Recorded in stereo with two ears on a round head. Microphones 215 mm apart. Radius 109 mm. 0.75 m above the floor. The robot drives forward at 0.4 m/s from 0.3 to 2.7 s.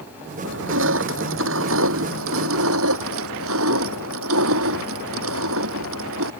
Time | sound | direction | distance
0.4 | crushing | 55° right (ahead or behind) | ?